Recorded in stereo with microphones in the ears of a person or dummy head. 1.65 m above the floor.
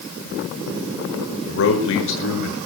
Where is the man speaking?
75° left (ahead or behind), 6.5 m; by 2.6 s 65° left (ahead or behind), 6.5 m.